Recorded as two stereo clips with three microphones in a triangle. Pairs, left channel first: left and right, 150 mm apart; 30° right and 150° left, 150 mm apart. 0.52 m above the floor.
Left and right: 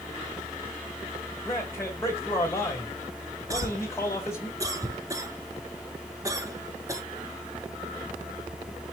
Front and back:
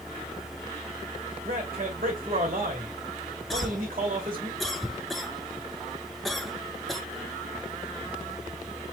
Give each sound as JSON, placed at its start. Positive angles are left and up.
{"t": 1.4, "sound": "a man speaking", "azimuth_deg": 160, "distance_m": 2.0}
{"t": 3.5, "sound": "a cough", "azimuth_deg": -120, "distance_m": 0.6}